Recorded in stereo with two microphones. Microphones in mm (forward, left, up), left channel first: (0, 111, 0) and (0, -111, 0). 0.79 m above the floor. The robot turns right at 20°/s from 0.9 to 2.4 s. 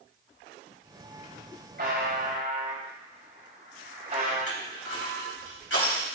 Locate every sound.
1.8 s a buzzer: 50° right (ahead or behind), 4.5 m; by 4.4 s 40° right (ahead or behind), 4.5 m
4.5 s crushing: 85° left, 4.5 m